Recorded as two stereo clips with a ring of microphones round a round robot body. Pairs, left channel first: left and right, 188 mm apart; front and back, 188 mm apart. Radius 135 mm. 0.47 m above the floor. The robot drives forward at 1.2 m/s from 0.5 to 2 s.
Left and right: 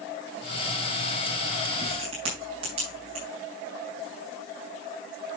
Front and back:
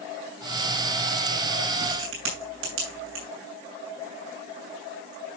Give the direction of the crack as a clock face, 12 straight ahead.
5 o'clock.